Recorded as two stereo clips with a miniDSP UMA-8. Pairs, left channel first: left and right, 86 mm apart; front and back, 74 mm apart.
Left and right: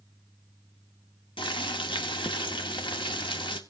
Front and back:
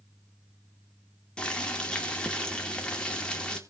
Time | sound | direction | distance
1.4 | boiling | 75° left | 2 m